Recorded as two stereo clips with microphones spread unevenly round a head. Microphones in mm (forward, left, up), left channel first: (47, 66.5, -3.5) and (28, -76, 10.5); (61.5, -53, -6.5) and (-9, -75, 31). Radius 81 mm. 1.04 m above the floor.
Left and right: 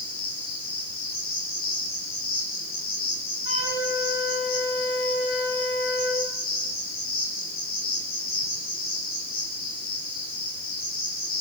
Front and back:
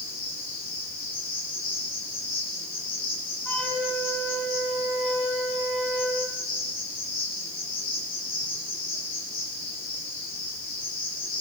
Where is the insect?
70° left, 7.5 m.